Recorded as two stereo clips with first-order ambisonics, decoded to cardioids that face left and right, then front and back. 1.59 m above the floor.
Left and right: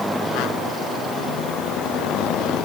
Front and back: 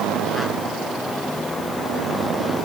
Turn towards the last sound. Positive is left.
No sound to turn to.